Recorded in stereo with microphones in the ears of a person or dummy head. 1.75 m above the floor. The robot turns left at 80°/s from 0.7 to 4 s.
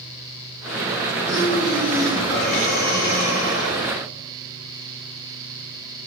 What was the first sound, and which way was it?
Breathing, 115° right.